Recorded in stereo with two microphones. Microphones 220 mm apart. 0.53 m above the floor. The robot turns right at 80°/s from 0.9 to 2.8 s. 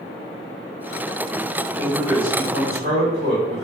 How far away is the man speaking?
About 2.0 m.